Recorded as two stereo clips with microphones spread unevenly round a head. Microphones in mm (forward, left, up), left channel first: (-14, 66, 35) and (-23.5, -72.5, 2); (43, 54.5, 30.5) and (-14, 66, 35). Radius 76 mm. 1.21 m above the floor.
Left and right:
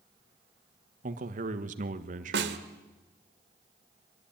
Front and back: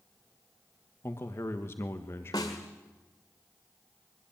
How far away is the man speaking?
About 1.4 m.